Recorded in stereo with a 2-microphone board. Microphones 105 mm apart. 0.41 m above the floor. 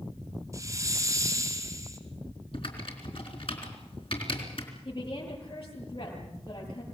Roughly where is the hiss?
Right.